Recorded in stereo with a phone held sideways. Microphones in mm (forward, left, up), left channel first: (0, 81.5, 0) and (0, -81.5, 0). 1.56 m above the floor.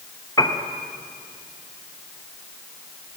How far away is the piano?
About 0.8 m.